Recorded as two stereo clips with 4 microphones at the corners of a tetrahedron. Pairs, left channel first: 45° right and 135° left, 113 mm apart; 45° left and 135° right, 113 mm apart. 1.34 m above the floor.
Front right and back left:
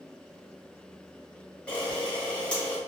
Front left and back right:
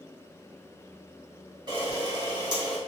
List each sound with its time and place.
1.7 s a camera shutter: 120° right, 1.5 m